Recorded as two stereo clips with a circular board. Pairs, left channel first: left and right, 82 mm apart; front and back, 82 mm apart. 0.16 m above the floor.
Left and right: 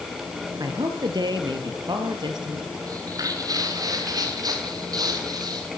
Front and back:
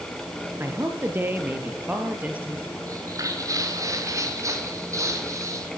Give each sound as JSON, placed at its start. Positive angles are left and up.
{"t": 0.6, "sound": "a man speaking", "azimuth_deg": -120, "distance_m": 3.5}
{"t": 2.9, "sound": "footsteps", "azimuth_deg": -135, "distance_m": 6.0}